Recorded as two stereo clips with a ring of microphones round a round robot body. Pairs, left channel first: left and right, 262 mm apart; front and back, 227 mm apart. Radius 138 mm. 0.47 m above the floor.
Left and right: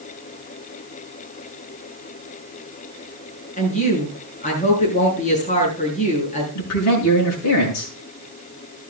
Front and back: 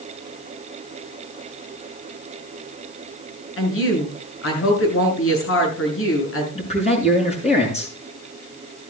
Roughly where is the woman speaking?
Ahead left.